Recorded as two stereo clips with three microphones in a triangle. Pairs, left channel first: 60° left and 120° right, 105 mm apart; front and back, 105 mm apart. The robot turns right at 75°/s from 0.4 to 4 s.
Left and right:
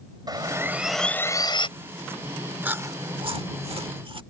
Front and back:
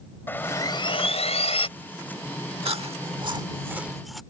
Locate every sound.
0.3 s sawing: 70° right; by 1.7 s 25° left
2.6 s chewing: 165° left; by 4.2 s 90° right